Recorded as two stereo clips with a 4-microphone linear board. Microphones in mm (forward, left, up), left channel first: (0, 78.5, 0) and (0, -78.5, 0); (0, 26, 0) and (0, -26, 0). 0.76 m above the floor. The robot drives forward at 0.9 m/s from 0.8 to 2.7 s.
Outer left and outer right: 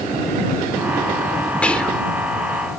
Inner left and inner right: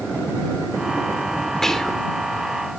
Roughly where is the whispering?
Centre.